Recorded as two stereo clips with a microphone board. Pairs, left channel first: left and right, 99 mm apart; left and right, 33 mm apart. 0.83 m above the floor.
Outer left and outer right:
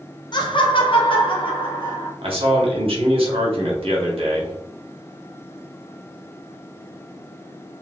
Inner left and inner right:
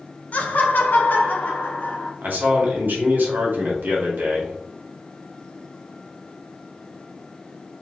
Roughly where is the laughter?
Left.